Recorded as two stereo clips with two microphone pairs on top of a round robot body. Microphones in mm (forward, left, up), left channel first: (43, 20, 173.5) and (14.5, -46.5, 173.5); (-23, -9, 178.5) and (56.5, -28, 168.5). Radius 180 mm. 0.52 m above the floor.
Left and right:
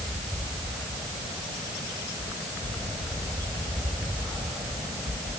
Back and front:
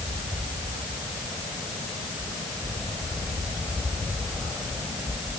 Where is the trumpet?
No trumpet in this recording.